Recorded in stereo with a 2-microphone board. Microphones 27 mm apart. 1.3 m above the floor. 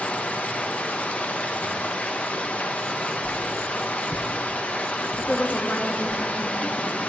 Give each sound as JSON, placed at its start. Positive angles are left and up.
{"t": 0.0, "sound": "running water", "side_deg": 65, "distance_m": 1.3}
{"t": 3.2, "sound": "a whoosh", "side_deg": 45, "distance_m": 3.0}
{"t": 5.2, "sound": "a woman speaking", "side_deg": 70, "distance_m": 2.5}